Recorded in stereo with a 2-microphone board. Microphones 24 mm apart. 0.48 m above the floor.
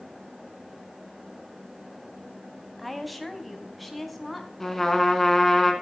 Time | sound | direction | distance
2.8 | a woman speaking | centre (ahead or behind) | 3 m
4.6 | a trumpet | 10° left (ahead or behind) | 3 m